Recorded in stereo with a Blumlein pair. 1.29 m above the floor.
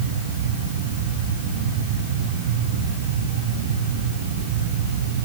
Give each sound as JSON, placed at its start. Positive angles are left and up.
{"t": 0.0, "sound": "a fan", "azimuth_deg": -60, "distance_m": 9.5}